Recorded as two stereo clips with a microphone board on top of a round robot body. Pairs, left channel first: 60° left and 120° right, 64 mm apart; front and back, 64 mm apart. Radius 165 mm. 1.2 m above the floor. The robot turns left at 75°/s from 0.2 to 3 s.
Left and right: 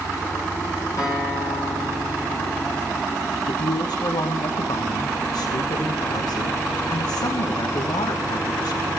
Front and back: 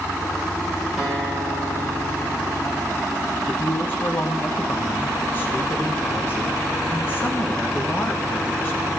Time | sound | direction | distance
1.0 | a guitar | 95° left | 9.5 m
3.5 | a woman speaking | 60° left | 1.4 m